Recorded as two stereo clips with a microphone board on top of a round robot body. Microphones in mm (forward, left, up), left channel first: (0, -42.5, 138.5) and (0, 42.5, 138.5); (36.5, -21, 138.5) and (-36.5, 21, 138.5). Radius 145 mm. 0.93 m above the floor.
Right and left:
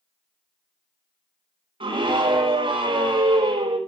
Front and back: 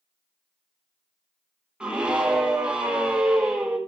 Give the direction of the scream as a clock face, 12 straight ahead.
10 o'clock.